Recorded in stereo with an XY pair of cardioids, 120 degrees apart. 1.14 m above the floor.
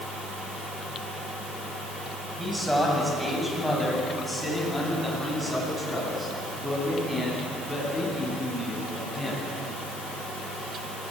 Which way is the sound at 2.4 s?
5° right.